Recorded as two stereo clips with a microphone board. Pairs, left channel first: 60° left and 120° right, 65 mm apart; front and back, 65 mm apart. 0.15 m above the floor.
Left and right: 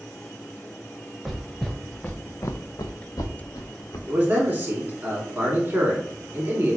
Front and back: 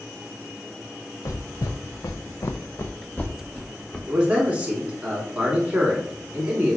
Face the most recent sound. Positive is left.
turn(degrees=-130)